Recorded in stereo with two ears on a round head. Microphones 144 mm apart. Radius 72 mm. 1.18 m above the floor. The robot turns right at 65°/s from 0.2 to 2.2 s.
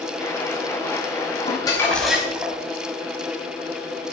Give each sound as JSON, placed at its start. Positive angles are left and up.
{"t": 1.5, "sound": "crumpling", "azimuth_deg": 140, "distance_m": 4.0}